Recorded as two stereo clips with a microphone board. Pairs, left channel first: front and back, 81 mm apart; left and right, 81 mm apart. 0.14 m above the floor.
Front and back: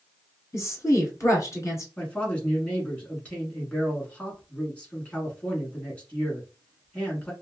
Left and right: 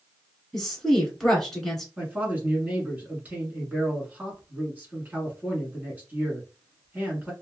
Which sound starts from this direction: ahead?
A woman speaking, at 0.5 s.